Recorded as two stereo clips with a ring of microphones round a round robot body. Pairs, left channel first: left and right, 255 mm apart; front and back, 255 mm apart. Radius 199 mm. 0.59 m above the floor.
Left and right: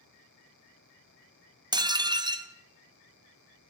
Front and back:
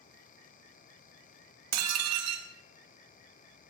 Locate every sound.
1.7 s dishes clattering: 165° right, 1.0 m